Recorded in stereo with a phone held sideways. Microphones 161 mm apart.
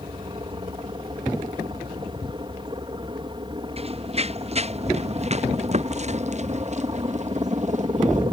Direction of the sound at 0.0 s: 30° right (ahead or behind).